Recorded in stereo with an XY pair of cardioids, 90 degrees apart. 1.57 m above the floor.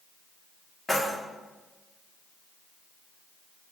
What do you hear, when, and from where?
0.9 s keys jangling: 20° left, 1.4 m